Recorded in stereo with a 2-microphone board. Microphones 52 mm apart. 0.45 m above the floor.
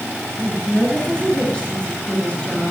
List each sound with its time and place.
0.4 s a woman speaking: 20° left (ahead or behind), 9.5 m